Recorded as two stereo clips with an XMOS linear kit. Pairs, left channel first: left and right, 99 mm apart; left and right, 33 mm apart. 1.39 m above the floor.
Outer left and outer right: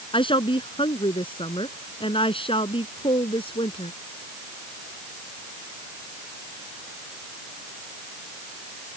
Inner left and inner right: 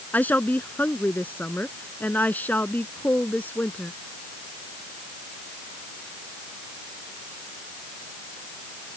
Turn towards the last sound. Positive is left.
turn(degrees=70)  # may be behind; listen again after turning